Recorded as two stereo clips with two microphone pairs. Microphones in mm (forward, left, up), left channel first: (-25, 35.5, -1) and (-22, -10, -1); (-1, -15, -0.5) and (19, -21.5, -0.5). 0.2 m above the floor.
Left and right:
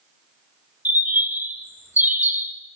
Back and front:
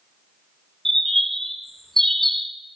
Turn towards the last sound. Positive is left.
turn(degrees=-125)